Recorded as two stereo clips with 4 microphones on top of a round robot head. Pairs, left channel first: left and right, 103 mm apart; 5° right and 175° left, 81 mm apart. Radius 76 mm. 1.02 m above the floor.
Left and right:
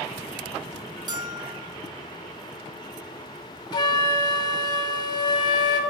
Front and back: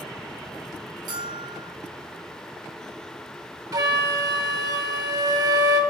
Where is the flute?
140° left, 1.1 m.